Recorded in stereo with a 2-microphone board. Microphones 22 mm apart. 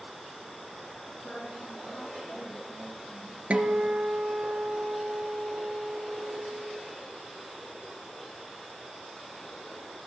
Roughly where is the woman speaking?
Left.